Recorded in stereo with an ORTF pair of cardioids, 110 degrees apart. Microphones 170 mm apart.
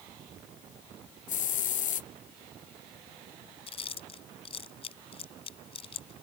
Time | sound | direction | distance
1.3 | a hiss | 50° left | ?
3.7 | chewing | 35° left | ?